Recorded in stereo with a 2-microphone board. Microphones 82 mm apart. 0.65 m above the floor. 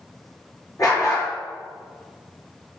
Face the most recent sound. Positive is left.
turn(degrees=40)  # may be behind; listen again after turning